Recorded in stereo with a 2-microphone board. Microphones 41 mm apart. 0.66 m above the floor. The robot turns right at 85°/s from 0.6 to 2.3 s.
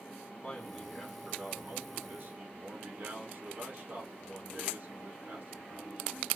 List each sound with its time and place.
0.4 s a man speaking: 160° left, 1.3 m; by 6.3 s 55° right, 1.3 m